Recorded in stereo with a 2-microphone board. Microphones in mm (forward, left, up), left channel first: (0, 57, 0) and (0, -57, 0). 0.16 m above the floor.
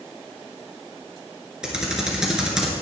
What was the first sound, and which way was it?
Typing on a keyboard, 5° right (ahead or behind).